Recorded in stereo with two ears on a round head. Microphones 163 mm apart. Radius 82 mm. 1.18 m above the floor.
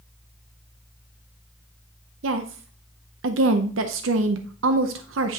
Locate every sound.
2.2 s a woman speaking: 80° right, 0.7 m